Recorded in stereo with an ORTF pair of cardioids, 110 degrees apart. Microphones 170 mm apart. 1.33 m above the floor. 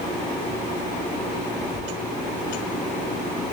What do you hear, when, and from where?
1.7 s a squeak: 5° right, 1.0 m